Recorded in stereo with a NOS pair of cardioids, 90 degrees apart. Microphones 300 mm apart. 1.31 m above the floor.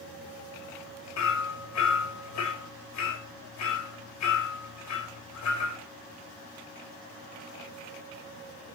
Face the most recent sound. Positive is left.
turn(degrees=60)